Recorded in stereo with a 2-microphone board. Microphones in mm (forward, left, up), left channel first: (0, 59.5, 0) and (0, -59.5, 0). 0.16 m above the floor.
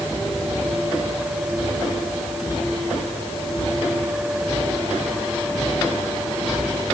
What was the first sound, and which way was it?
Only background noise.